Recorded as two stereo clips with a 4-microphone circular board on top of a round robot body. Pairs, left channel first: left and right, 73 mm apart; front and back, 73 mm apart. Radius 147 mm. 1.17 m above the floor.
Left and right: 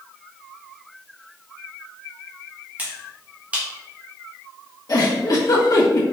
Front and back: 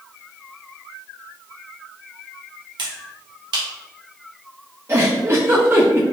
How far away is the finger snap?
About 1.2 m.